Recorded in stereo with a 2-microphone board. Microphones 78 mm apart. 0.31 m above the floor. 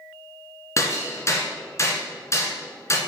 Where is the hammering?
35° left (ahead or behind), 1.9 m.